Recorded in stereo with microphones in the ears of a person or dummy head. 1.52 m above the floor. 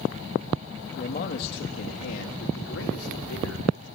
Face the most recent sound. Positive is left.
turn(degrees=80)